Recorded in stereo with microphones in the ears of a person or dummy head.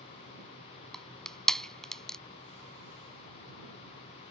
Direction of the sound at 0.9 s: 5° left (ahead or behind).